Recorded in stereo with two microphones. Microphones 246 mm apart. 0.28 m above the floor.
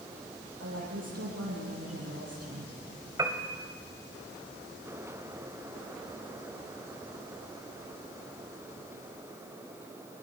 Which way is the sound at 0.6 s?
75° right (ahead or behind).